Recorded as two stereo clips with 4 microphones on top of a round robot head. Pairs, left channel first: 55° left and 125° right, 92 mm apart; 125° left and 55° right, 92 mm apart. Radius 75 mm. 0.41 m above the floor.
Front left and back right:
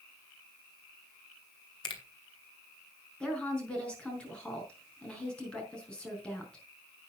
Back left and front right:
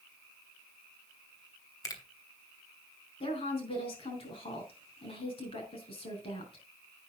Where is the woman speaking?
135° left, 4.5 m.